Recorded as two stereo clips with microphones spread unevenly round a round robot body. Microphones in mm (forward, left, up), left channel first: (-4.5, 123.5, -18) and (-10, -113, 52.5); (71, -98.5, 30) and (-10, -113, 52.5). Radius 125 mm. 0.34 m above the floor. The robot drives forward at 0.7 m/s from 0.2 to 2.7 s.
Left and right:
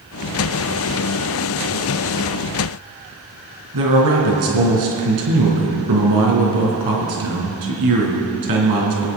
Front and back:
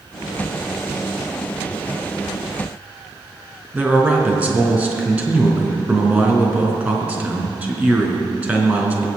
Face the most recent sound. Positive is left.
turn(degrees=-95)